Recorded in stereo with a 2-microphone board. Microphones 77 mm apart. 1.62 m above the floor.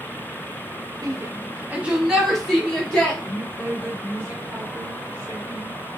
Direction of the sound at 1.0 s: 50° right (ahead or behind).